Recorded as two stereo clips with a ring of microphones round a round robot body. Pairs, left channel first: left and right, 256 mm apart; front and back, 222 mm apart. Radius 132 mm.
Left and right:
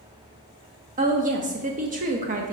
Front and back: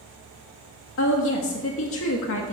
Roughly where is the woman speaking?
Ahead right.